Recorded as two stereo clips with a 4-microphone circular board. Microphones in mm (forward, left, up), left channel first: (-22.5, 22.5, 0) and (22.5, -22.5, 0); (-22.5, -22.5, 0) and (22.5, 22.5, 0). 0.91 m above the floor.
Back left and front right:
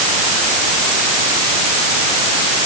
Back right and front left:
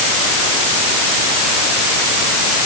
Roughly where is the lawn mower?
No lawn mower in this recording.